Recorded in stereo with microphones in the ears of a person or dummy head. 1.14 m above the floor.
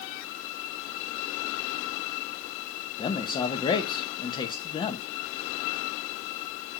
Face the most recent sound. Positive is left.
turn(degrees=20)  # may be behind; listen again after turning